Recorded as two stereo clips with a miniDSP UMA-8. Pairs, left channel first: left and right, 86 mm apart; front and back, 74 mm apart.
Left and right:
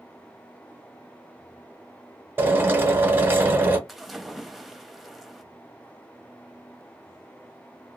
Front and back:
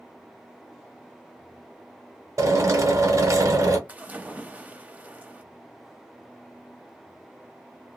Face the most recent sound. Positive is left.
turn(degrees=180)